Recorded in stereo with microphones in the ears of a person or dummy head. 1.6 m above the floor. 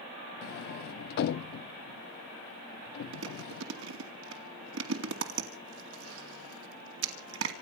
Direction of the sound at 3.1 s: 75° right (ahead or behind).